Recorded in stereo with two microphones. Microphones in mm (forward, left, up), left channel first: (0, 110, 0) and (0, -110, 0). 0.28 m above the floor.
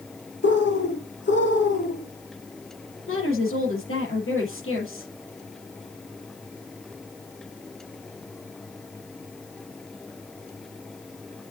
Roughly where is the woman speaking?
Left.